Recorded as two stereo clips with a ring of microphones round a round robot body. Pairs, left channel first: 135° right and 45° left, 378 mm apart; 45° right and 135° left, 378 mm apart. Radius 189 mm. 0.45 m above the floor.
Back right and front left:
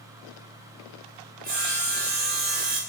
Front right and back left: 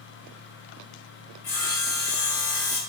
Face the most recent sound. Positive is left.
turn(degrees=-10)